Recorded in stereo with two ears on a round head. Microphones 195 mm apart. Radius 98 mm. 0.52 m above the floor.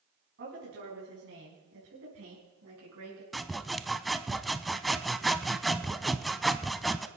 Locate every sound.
0.4 s a woman speaking: 55° right (ahead or behind), 4.5 m; by 3.2 s 75° right (ahead or behind), 5.5 m
3.3 s sawing: centre (ahead or behind), 0.5 m